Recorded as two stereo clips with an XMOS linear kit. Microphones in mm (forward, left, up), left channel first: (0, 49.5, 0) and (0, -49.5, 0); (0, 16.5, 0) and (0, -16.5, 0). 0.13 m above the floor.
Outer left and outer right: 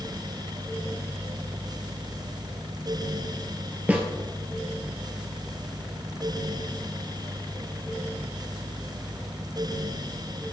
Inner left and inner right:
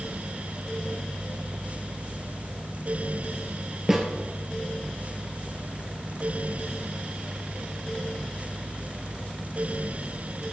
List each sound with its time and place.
3.9 s a snare drum: 15° right (ahead or behind), 0.9 m